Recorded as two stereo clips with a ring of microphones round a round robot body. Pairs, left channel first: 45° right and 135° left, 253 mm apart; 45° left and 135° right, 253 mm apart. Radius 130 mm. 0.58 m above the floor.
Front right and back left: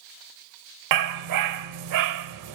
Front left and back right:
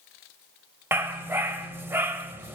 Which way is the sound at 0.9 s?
145° left.